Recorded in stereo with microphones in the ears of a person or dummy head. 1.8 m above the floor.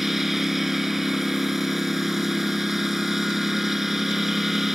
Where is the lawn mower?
Centre (ahead or behind).